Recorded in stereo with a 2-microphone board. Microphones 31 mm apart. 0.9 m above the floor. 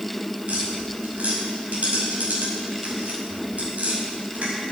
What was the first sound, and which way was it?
Tapping, 50° right (ahead or behind).